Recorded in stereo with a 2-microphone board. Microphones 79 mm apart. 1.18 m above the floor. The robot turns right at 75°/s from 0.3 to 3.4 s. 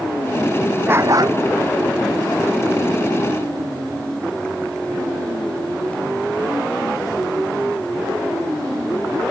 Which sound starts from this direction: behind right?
A dog barking, at 0.9 s.